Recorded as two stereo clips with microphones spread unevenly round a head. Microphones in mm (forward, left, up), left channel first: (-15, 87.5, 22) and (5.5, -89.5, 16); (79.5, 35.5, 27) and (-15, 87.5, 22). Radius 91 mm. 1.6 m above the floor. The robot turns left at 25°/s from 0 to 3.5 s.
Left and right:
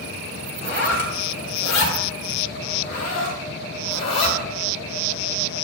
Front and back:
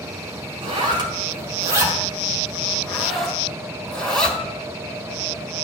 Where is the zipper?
120° left, 1.8 m; by 4.4 s 50° left, 1.8 m.